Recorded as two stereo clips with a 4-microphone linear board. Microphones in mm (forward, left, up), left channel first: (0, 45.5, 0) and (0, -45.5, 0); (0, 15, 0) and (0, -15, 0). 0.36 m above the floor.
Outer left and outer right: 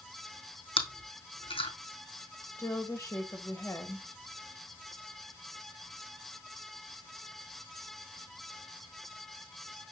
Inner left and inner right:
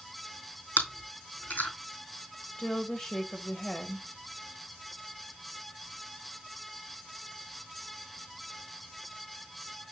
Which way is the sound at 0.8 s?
85° left.